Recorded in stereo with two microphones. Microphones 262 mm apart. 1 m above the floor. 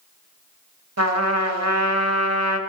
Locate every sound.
1.0 s a trumpet: 70° right (ahead or behind), 0.9 m